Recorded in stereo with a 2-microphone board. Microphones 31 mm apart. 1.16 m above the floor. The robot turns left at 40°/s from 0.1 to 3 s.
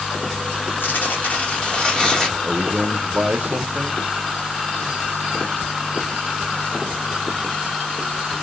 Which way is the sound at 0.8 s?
80° left.